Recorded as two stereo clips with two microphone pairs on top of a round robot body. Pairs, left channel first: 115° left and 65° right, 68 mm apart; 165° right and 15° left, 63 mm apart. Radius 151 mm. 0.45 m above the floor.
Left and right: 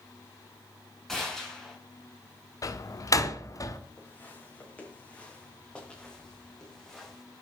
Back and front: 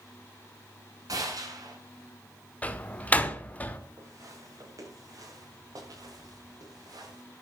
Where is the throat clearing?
I don't hear throat clearing.